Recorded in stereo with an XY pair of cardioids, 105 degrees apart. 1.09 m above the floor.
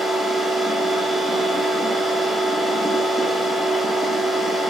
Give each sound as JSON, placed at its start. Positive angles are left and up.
{"t": 0.0, "sound": "a machine running", "azimuth_deg": -10, "distance_m": 0.9}